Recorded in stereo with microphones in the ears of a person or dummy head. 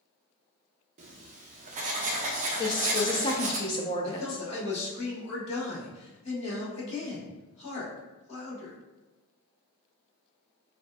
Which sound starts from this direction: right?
Writing, at 1.0 s.